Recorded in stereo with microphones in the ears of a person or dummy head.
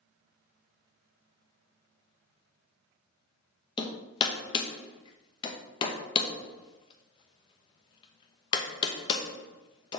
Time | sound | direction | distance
3.8 | hammering | 30° left (ahead or behind) | 1.0 m